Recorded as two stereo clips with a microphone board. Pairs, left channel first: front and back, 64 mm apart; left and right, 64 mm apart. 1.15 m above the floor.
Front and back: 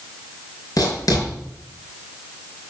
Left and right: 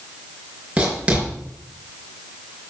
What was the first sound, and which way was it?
Writing, 20° right.